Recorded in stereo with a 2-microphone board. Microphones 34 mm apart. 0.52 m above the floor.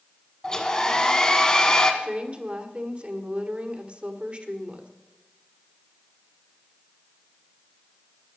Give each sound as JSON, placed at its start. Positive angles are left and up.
{"t": 0.4, "sound": "a hair dryer", "side_deg": 25, "distance_m": 1.7}
{"t": 2.0, "sound": "a woman speaking", "side_deg": -35, "distance_m": 1.7}